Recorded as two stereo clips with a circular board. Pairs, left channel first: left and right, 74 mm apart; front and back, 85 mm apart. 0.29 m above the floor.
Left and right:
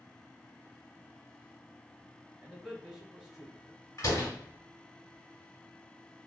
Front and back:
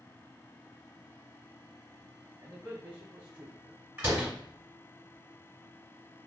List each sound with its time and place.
2.4 s a man speaking: 140° right, 0.9 m
4.0 s a door slam: 120° left, 1.4 m